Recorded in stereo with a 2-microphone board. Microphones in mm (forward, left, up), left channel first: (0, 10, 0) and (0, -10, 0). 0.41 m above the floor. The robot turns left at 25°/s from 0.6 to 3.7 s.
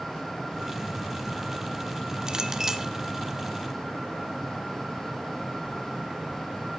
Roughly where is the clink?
Right.